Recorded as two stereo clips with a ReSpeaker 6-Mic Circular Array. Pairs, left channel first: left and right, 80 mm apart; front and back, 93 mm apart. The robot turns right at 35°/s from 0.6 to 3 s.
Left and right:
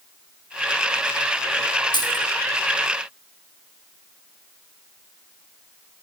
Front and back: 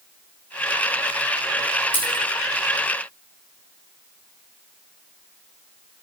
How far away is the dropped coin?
About 7 m.